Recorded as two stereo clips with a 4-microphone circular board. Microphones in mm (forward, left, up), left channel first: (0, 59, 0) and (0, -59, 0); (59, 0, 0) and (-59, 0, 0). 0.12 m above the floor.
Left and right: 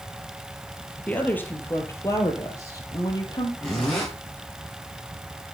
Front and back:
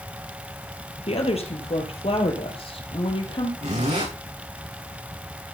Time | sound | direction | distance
1.1 | a woman speaking | 15° left | 3 m
3.6 | a zipper | 175° left | 5.5 m